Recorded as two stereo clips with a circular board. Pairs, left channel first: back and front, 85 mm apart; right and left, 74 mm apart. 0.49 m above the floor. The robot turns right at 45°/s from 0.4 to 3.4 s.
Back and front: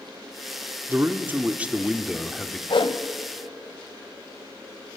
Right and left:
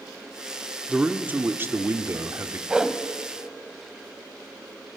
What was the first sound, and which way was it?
A man speaking, 30° left.